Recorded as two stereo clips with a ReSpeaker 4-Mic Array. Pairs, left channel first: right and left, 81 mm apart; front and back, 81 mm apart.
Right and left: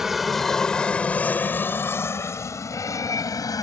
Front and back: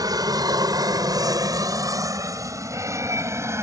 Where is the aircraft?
175° left; by 3.6 s 125° right.